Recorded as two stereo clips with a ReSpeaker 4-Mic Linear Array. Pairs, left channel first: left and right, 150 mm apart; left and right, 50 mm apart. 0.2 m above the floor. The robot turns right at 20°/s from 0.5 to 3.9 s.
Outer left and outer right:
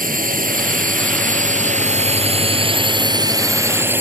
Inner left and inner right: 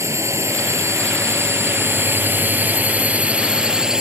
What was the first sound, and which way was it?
A drone, 85° right.